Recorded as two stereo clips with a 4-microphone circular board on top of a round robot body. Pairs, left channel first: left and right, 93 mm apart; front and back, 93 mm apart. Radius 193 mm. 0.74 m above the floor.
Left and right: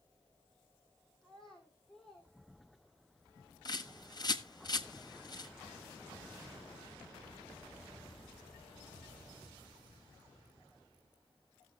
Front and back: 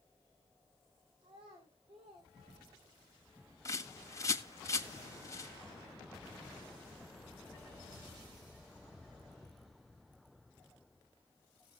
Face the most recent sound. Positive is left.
turn(degrees=50)